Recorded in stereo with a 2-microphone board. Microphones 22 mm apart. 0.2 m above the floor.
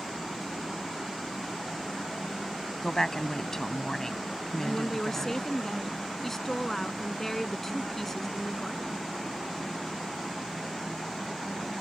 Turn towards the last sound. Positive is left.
turn(degrees=15)  # may be behind; listen again after turning